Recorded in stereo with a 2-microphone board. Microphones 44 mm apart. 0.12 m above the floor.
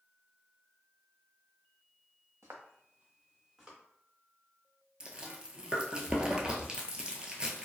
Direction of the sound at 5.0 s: 20° right (ahead or behind).